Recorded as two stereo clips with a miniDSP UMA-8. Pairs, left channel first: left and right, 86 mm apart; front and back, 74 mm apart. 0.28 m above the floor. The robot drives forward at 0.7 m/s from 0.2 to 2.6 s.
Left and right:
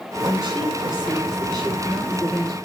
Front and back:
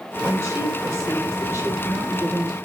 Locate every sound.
0.2 s a woman speaking: 130° right, 7.5 m; by 2.6 s 135° right, 8.5 m